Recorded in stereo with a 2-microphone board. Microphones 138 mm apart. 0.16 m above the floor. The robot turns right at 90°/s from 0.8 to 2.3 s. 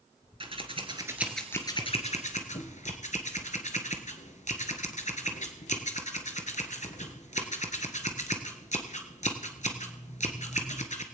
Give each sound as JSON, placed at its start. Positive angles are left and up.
{"t": 0.4, "sound": "scissors", "side_deg": -40, "distance_m": 1.2}